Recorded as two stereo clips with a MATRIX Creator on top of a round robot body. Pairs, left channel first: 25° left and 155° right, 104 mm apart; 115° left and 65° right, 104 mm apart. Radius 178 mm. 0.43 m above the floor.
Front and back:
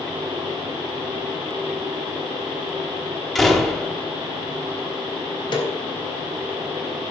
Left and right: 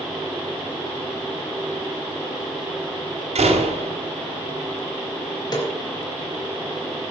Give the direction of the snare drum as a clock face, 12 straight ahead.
10 o'clock.